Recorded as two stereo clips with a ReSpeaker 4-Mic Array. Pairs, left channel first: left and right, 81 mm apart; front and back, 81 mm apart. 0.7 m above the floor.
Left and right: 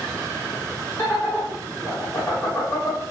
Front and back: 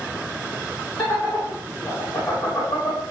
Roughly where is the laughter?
Ahead left.